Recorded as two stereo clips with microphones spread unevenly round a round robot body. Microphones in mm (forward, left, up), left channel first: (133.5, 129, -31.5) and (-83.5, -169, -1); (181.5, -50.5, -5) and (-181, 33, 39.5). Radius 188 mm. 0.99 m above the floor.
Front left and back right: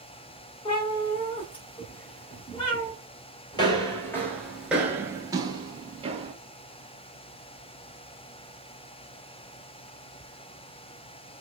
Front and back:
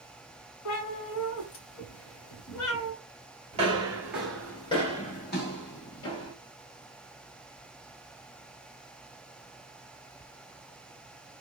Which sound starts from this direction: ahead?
A cat meowing, at 0.7 s.